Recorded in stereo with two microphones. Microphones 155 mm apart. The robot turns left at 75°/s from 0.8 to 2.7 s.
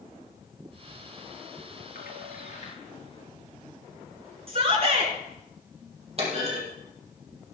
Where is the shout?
40° right (ahead or behind), 4.5 m.